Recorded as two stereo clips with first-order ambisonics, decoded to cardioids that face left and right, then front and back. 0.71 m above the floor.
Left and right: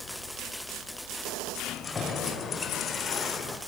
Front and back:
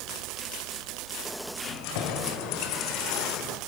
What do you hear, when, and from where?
1.6 s keys jangling: 15° left, 2 m; by 3.6 s 45° left, 1.3 m